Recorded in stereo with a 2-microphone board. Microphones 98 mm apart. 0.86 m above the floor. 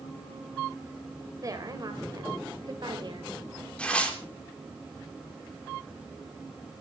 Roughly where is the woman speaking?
Right.